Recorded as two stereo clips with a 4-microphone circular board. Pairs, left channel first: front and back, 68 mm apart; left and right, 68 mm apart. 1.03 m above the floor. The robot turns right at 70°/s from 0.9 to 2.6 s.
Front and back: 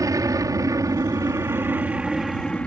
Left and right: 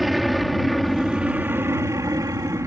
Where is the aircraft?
Straight behind; by 2.7 s 70° right.